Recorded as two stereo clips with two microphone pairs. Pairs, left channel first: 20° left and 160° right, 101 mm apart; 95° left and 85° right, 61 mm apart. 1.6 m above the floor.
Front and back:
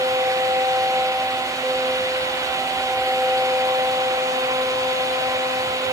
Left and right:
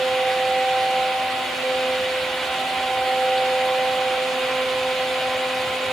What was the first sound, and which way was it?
Only background noise.